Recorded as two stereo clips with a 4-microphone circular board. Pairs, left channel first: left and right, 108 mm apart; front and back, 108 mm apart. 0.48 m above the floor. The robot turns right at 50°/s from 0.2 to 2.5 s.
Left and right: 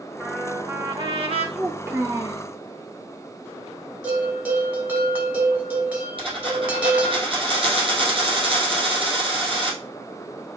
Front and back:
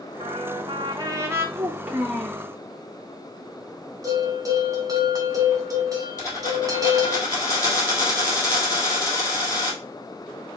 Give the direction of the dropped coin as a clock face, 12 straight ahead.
2 o'clock.